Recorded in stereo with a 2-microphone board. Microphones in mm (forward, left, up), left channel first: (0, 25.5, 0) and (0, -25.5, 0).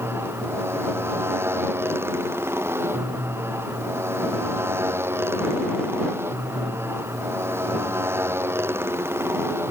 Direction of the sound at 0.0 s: 50° right (ahead or behind).